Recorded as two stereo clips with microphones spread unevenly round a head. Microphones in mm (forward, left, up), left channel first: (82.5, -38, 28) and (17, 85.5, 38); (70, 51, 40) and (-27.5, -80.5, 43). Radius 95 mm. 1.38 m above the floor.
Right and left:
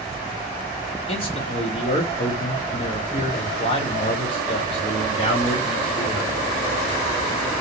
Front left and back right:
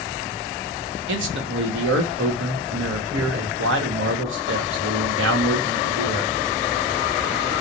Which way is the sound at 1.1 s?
125° right.